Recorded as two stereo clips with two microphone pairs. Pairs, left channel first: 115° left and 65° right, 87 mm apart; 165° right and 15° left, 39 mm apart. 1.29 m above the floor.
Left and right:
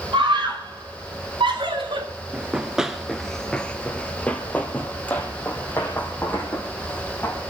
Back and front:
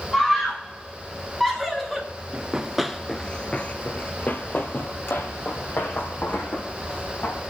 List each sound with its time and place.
0.1 s a scream: 85° right, 5.5 m; by 2.1 s 80° right, 4.5 m
2.3 s running footsteps: 10° right, 1.3 m; by 7.4 s 175° right, 5.5 m